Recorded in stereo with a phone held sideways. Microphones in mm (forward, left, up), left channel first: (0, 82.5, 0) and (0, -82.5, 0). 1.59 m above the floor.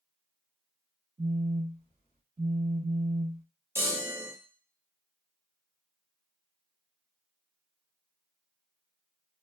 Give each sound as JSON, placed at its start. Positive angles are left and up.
{"t": 1.2, "sound": "a phone buzzing", "side_deg": -55, "distance_m": 1.5}
{"t": 3.8, "sound": "a chime", "side_deg": -15, "distance_m": 0.7}